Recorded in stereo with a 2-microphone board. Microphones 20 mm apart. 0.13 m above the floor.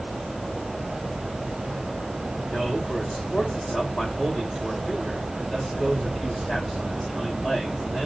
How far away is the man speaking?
About 6.5 m.